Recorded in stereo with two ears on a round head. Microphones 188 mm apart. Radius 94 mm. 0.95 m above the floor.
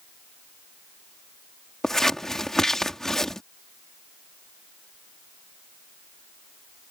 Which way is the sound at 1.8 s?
Centre (ahead or behind).